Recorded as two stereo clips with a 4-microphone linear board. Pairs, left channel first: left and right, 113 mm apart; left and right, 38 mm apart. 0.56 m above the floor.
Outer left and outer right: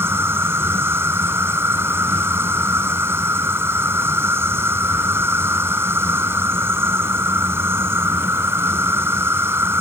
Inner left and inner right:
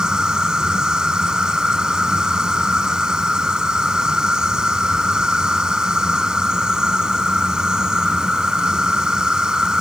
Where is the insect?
20° right (ahead or behind).